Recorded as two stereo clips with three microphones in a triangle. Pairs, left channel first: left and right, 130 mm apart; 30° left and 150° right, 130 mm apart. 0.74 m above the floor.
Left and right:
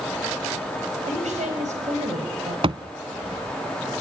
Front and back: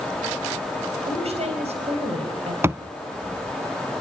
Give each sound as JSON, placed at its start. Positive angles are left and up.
{"t": 1.1, "sound": "a woman speaking", "azimuth_deg": -115, "distance_m": 4.0}
{"t": 2.6, "sound": "a thud", "azimuth_deg": -90, "distance_m": 0.8}